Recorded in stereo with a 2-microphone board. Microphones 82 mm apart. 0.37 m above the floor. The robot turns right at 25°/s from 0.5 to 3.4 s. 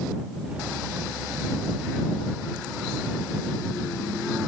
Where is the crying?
I don't hear crying.